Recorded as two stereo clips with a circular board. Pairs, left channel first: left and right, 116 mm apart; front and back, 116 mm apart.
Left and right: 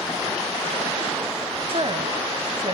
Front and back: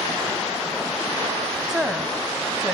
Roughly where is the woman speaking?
Right.